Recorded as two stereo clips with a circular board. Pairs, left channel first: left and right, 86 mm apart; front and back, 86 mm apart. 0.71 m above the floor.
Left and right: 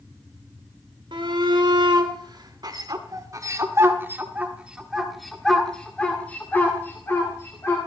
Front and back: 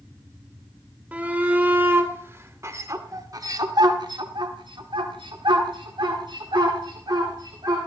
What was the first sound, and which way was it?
A shout, 105° right.